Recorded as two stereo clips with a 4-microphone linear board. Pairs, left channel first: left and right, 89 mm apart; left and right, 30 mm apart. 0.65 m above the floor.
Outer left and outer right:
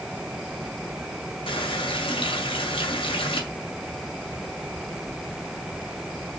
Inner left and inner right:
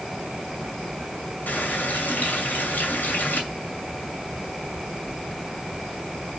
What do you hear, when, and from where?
1.5 s a running tap: 80° left, 2 m